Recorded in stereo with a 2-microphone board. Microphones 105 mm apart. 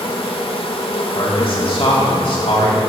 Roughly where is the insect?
Left.